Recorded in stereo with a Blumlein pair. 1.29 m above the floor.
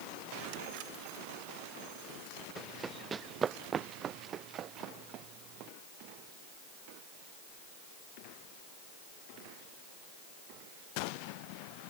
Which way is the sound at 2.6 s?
15° right.